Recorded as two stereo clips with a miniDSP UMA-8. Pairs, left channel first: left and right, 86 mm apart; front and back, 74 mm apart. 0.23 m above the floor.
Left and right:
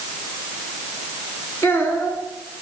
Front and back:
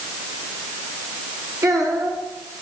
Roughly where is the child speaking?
Behind left.